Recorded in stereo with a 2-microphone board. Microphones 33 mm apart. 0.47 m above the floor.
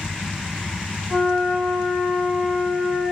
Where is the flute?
25° right (ahead or behind), 4 m.